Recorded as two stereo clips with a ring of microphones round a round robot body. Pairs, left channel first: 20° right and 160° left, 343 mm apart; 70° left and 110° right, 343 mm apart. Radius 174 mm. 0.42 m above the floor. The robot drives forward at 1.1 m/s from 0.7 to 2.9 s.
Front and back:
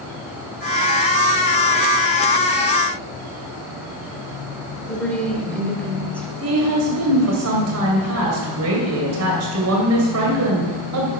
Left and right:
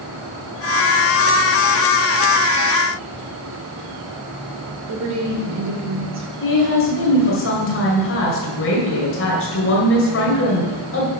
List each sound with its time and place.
4.9 s a woman speaking: 110° right, 1.9 m
6.4 s a woman speaking: 115° left, 2.5 m